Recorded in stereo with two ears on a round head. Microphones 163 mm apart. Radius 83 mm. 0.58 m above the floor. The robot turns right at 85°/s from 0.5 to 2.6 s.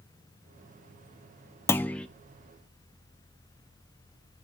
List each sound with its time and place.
1.7 s a clunk: 15° left (ahead or behind), 0.5 m; by 2.1 s 5° left (ahead or behind), 0.5 m